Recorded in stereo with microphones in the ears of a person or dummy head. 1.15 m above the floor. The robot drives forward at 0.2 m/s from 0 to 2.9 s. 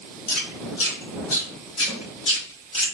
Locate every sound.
0.3 s chewing: 50° left (ahead or behind), 1.4 m; by 2.9 s 40° left (ahead or behind), 1.8 m
1.9 s a snare drum: 15° left (ahead or behind), 1.2 m